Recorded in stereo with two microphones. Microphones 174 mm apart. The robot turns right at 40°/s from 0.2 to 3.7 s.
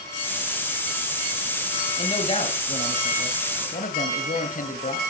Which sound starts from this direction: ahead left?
A man speaking, at 2.0 s.